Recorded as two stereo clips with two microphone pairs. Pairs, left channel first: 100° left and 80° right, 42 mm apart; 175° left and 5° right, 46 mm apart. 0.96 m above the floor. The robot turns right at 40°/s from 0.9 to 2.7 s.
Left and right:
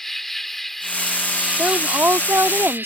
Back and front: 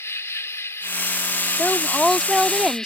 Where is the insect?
Straight behind; by 2.9 s 110° right.